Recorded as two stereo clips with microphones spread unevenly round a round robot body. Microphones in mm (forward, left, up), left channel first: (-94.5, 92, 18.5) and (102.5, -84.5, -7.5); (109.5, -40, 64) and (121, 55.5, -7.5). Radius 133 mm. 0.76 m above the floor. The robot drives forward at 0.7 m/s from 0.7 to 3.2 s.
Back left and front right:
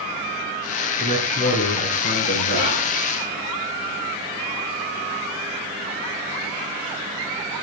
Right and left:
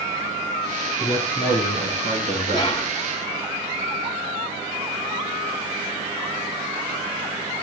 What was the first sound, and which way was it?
A man speaking, 150° right.